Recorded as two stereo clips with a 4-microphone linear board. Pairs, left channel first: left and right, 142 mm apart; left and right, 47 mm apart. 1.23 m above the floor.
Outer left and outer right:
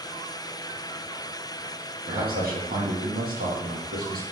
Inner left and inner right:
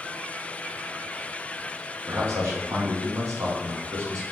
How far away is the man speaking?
About 1.3 m.